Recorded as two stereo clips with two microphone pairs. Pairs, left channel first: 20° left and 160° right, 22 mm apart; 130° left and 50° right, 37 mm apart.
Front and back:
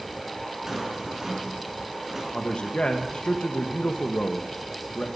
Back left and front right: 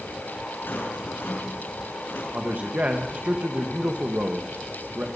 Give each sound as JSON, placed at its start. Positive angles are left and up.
{"t": 0.7, "sound": "a rattle", "azimuth_deg": 135, "distance_m": 5.5}
{"t": 2.3, "sound": "a man speaking", "azimuth_deg": -5, "distance_m": 1.6}